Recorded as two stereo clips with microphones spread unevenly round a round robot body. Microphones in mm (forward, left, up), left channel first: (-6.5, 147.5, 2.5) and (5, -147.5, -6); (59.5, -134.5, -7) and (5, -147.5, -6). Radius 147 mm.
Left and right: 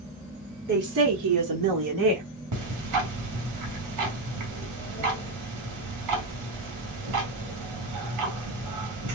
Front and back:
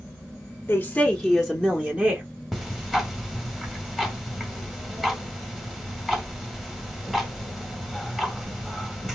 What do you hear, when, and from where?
0.7 s a woman speaking: 35° right, 1.0 m; by 2.2 s 105° right, 1.9 m
2.5 s ticking: 85° right, 1.7 m